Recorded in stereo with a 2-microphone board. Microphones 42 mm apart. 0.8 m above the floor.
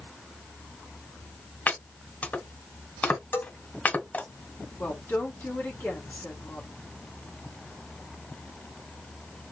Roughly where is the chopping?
Left.